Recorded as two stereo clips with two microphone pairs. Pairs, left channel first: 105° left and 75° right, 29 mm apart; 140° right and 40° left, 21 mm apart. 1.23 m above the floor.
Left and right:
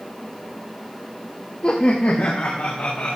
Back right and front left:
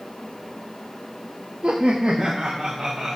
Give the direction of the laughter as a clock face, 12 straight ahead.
10 o'clock.